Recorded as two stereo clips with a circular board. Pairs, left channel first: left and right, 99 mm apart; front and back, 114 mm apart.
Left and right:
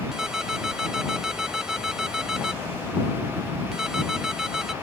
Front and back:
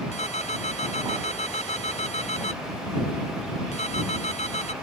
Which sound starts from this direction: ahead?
A ringtone, at 0.1 s.